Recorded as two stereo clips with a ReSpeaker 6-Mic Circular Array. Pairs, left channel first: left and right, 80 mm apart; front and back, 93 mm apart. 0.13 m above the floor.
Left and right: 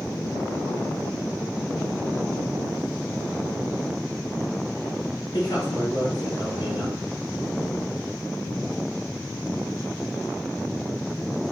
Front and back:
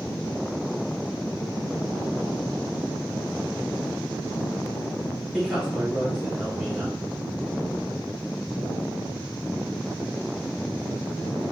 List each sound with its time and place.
5.3 s a man speaking: 100° left, 2.5 m